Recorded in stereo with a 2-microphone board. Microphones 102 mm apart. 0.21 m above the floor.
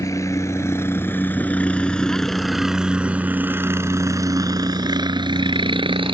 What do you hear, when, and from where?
0.0 s a helicopter: 30° left (ahead or behind); by 6.1 s 60° right (ahead or behind)